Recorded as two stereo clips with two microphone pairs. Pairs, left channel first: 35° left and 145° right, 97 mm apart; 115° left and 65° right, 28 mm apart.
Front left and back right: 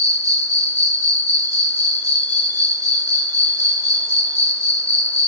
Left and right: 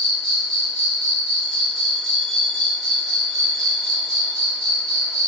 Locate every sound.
0.0 s an insect: 165° right, 0.7 m